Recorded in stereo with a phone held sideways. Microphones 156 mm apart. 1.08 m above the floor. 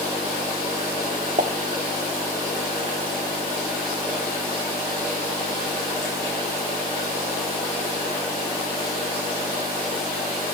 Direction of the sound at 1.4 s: 55° right (ahead or behind).